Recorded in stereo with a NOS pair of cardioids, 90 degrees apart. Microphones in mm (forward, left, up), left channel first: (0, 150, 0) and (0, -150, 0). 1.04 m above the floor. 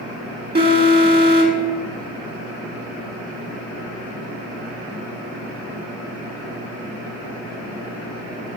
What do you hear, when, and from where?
0.6 s an alarm: 30° right, 1.7 m